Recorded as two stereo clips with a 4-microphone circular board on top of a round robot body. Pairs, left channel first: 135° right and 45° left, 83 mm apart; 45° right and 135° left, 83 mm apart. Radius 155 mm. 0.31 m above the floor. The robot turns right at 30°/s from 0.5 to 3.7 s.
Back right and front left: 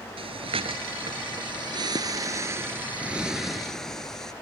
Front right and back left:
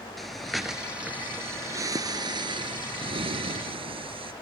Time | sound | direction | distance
0.2 | breathing | 45° left | ?